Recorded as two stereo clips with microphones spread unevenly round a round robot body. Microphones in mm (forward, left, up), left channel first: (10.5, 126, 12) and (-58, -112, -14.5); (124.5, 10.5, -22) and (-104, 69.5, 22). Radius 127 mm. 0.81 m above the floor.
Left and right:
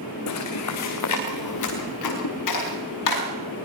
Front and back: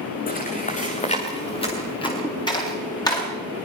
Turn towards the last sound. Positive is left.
turn(degrees=60)